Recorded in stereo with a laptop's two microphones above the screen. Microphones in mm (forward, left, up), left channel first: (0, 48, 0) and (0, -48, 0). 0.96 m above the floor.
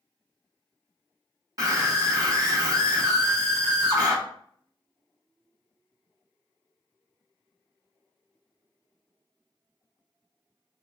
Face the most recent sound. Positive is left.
turn(degrees=-40)  # may be behind; listen again after turning